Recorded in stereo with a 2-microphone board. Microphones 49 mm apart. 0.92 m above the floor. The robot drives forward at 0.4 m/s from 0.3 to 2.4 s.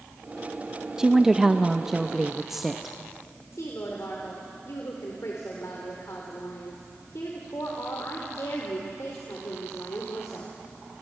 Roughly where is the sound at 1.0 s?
Centre.